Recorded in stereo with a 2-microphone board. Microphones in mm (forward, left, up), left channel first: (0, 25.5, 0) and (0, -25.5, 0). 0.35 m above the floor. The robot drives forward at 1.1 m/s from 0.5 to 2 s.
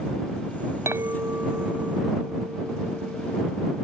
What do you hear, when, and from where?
0.9 s a clink: 65° right (ahead or behind); by 3.8 s 30° right (ahead or behind)